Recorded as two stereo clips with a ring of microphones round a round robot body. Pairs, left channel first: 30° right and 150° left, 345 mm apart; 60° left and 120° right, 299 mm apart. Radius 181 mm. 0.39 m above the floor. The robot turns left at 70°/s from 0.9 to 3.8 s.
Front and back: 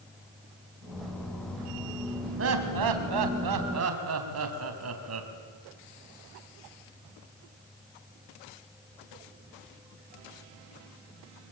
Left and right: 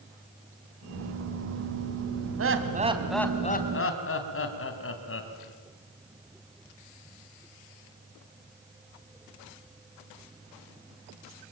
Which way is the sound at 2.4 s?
155° right.